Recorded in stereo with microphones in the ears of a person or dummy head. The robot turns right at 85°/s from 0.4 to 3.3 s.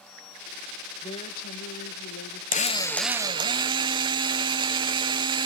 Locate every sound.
1.0 s a woman speaking: 30° left, 1.1 m; by 2.4 s 150° left, 1.1 m
2.5 s a drill: 140° left, 1.1 m; by 5.5 s 150° right, 1.1 m